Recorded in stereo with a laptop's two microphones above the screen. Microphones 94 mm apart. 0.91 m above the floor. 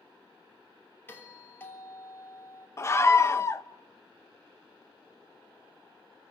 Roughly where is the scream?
Left.